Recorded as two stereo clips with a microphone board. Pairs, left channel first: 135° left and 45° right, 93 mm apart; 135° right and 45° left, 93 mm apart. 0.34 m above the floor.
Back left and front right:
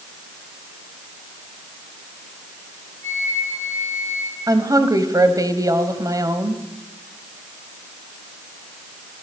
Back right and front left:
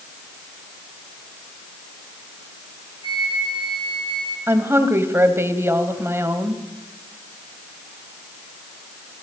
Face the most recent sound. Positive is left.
turn(degrees=-10)